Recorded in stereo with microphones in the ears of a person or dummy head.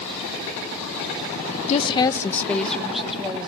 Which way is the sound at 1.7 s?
35° left (ahead or behind).